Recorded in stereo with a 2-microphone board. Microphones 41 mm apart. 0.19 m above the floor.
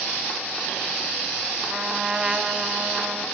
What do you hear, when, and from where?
1.7 s a trumpet: 20° right (ahead or behind), 0.8 m